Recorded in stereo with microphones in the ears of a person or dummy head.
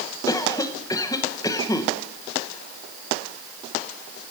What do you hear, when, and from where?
0.3 s a cough: 15° left (ahead or behind), 0.8 m